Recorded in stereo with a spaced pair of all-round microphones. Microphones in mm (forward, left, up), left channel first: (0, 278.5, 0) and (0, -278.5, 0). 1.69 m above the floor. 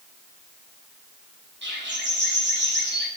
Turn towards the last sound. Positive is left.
turn(degrees=-20)  # may be behind; listen again after turning